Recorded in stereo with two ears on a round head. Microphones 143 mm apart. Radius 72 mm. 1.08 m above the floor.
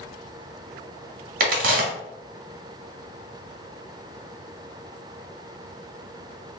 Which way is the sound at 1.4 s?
55° right (ahead or behind).